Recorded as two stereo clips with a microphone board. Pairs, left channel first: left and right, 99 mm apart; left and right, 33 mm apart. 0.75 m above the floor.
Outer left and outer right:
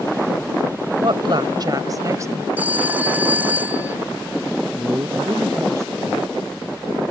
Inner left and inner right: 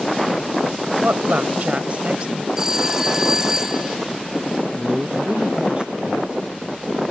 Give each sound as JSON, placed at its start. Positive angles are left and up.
{"t": 1.0, "sound": "a woman speaking", "side_deg": -60}
{"t": 2.6, "sound": "a phone ringing", "side_deg": -15}
{"t": 4.8, "sound": "a man speaking", "side_deg": -30}